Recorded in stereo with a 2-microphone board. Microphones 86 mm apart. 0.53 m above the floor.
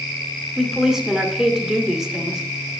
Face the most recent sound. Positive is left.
turn(degrees=-5)  # may be behind; listen again after turning